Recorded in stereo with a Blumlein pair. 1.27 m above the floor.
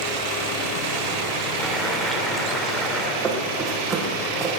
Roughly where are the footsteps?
Ahead.